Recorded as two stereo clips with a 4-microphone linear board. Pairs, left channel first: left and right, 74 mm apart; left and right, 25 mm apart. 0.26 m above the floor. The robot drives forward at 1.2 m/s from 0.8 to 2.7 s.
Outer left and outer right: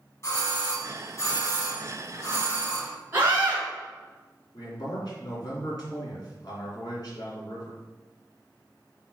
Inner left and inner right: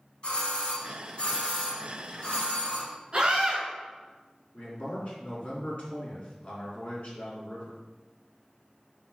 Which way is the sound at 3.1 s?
30° right (ahead or behind).